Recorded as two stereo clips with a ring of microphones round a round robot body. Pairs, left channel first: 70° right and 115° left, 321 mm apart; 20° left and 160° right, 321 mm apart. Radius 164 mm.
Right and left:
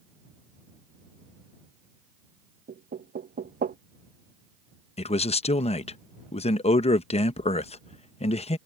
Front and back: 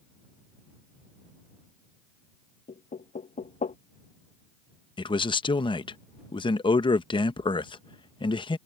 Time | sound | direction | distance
2.7 | knocking | 75° left | ?
5.0 | a man speaking | 30° right | ?